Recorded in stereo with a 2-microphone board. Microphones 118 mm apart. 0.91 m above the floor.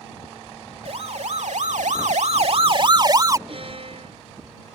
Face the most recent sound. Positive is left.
turn(degrees=-50)  # may be behind; listen again after turning